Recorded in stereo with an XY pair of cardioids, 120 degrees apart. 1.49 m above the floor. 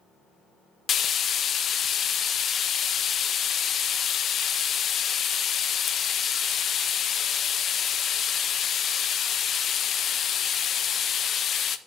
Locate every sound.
0.9 s frying: 45° left, 0.7 m